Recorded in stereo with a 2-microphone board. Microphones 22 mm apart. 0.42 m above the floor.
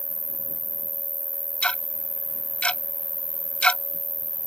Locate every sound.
0.0 s an insect: 65° right (ahead or behind)
1.6 s ticking: 60° left (ahead or behind)